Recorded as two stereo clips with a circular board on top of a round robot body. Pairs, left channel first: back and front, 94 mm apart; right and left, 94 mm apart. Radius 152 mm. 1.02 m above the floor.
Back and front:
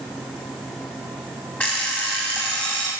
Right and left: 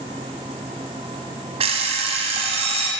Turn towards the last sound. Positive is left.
turn(degrees=105)